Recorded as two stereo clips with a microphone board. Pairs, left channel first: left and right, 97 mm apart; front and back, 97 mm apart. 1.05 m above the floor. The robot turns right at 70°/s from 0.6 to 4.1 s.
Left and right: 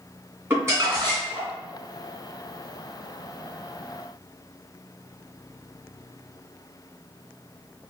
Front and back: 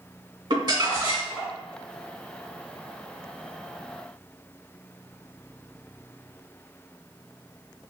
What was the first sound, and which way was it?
Crumpling, 155° right.